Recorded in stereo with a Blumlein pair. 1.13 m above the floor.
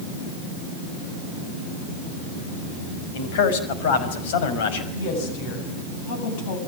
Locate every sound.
3.1 s a man speaking: 55° left, 5.5 m
4.9 s a woman speaking: 50° left, 8.5 m